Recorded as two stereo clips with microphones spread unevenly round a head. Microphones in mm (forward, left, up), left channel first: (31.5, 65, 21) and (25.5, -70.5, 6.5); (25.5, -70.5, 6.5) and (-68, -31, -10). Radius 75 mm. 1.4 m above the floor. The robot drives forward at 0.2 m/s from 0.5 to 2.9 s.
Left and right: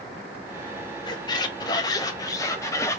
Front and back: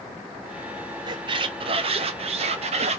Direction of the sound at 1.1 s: 115° left.